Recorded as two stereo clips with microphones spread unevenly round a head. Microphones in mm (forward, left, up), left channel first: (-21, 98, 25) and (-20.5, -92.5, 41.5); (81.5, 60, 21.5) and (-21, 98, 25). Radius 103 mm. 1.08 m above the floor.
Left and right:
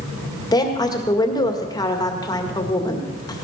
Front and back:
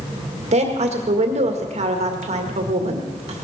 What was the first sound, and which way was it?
A woman speaking, 155° left.